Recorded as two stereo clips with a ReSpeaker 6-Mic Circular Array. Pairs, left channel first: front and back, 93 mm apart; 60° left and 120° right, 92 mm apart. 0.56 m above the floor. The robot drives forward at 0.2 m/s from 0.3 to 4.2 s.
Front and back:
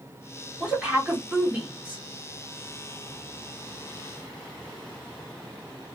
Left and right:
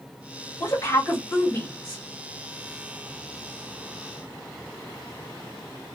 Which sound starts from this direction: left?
A woman speaking, at 0.6 s.